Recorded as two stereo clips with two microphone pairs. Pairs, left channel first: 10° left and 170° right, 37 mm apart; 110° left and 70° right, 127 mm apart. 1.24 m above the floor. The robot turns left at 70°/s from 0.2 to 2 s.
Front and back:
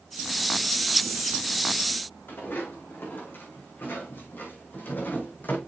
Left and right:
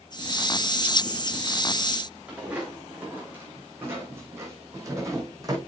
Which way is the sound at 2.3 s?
5° left.